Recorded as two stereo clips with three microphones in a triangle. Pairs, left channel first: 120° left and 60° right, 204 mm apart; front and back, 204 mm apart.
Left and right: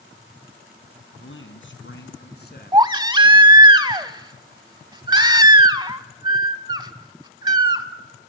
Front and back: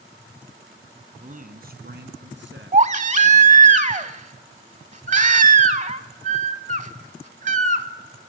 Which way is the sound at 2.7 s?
130° right.